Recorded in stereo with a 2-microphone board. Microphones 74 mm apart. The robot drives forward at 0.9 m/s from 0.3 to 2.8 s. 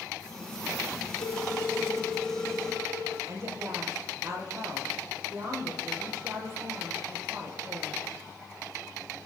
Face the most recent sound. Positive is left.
turn(degrees=-45)  # may be behind; listen again after turning